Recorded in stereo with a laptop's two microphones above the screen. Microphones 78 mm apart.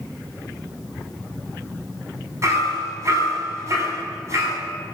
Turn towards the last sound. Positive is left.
turn(degrees=-40)  # may be behind; listen again after turning